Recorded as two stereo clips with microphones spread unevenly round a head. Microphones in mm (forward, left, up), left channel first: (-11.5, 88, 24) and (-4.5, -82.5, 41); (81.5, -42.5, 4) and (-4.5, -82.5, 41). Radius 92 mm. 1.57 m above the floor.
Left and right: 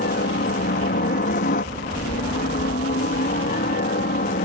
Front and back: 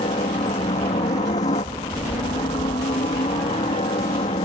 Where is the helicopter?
60° left; by 4.5 s 55° left.